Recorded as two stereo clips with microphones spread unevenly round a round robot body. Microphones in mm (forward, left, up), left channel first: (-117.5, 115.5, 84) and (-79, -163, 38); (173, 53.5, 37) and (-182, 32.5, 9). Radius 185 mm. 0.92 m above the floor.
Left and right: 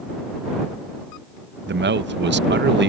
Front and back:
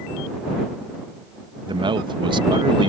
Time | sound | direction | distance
1.7 | a man speaking | 105° right | ?